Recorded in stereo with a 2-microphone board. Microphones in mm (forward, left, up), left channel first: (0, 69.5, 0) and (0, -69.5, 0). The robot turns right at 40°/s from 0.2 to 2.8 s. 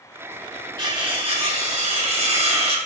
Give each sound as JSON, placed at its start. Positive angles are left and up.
{"t": 0.8, "sound": "cutlery clinking", "azimuth_deg": -140, "distance_m": 1.0}